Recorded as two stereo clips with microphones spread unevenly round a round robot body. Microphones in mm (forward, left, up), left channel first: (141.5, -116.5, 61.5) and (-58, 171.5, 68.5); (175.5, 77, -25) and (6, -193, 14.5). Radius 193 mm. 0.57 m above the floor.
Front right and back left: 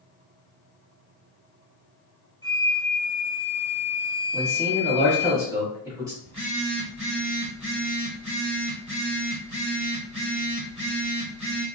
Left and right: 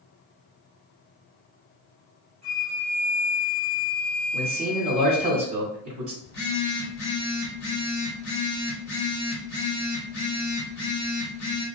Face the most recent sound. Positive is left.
turn(degrees=55)